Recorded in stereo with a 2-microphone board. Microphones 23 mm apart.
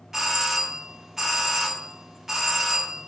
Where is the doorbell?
20° right (ahead or behind), 1.2 m.